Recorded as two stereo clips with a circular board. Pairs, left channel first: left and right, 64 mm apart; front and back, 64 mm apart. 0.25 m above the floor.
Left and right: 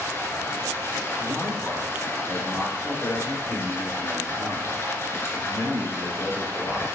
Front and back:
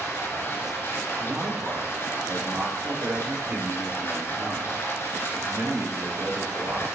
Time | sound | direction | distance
0.0 | running water | 45° left | 2.5 m
1.2 | a man speaking | 135° left | 5 m